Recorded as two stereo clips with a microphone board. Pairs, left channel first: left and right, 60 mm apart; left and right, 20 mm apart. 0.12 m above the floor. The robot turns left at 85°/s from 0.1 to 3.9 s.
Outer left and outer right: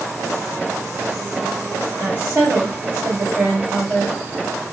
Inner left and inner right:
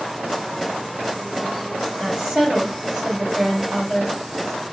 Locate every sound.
2.0 s a woman speaking: 35° right, 2.5 m; by 4.2 s 165° left, 2.5 m